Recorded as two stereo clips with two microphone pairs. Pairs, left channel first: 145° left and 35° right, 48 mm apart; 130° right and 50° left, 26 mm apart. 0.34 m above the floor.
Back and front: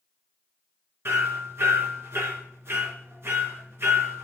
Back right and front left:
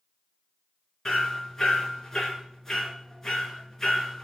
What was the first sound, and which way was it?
Hammering, 55° right.